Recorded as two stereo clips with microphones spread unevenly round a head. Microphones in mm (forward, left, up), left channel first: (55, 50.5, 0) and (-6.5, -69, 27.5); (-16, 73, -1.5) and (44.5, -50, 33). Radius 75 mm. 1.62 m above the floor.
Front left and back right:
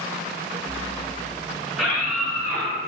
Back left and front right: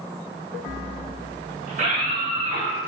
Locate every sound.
1.7 s a scream: 25° right, 3 m; by 2.8 s 35° right, 3.5 m